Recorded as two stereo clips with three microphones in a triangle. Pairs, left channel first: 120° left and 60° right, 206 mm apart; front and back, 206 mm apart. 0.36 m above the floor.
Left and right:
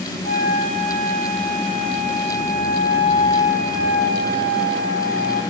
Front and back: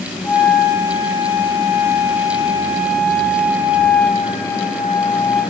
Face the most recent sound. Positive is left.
turn(degrees=75)